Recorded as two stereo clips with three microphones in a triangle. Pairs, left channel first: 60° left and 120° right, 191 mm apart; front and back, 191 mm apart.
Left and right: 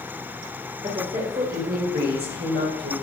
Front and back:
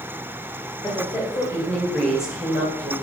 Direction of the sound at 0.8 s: 65° right.